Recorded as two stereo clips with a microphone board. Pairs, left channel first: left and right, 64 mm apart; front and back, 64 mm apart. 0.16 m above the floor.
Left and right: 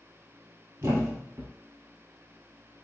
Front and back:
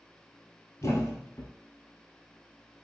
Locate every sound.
0.8 s a thud: 45° right, 1.5 m